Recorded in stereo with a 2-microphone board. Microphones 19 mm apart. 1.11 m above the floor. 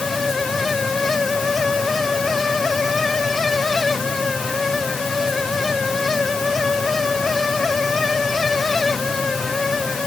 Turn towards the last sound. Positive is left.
No sound to turn to.